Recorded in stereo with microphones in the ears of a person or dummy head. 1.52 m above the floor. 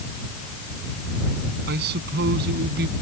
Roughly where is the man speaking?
Right.